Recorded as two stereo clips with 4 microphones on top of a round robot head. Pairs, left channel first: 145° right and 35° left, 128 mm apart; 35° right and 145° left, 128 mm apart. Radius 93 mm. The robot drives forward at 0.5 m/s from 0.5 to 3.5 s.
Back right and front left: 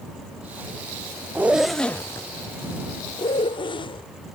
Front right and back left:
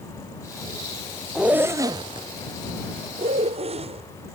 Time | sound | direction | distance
1.4 | a zipper | 70° left | ?